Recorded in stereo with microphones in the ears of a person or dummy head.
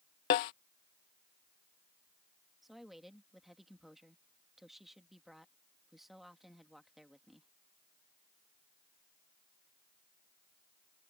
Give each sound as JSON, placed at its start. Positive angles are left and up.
{"t": 0.3, "sound": "a snare drum", "side_deg": 25}
{"t": 2.6, "sound": "a woman speaking", "side_deg": 0}